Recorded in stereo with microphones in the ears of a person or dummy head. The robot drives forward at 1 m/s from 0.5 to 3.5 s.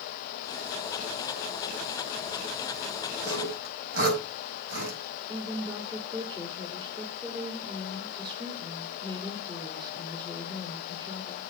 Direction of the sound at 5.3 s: 15° right (ahead or behind).